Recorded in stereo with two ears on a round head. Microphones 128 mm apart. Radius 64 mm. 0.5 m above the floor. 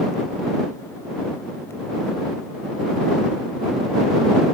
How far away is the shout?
No shout in this recording.